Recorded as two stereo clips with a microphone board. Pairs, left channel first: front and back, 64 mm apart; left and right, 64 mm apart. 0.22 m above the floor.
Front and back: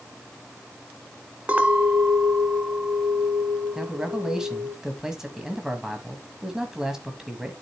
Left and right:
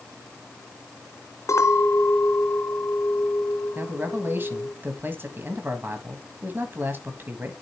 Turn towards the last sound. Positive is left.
turn(degrees=-105)